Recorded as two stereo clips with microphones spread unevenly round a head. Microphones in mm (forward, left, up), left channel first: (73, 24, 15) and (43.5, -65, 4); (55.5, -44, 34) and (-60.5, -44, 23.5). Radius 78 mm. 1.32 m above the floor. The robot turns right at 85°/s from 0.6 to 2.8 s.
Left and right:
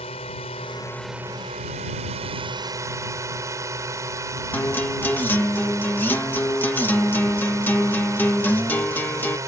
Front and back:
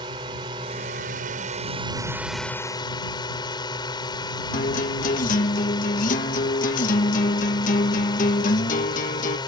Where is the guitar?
Straight ahead.